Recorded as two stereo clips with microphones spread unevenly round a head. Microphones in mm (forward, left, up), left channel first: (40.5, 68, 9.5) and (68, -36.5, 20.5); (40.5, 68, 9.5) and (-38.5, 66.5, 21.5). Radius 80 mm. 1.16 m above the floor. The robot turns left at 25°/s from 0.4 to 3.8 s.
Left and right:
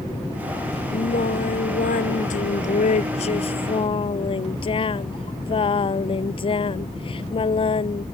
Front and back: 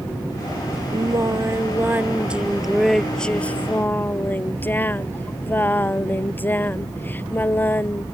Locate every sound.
0.9 s singing: 140° left; by 8.0 s 65° left